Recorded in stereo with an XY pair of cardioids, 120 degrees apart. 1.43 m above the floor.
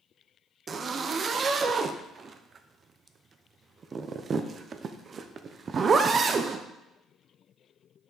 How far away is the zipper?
About 0.6 m.